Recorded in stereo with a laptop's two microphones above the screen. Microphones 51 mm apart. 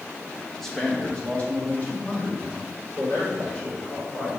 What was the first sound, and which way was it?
A man speaking, 5° left (ahead or behind).